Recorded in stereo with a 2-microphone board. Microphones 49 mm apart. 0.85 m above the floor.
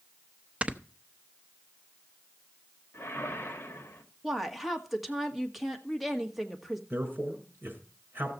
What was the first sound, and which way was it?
Snoring, 25° right (ahead or behind).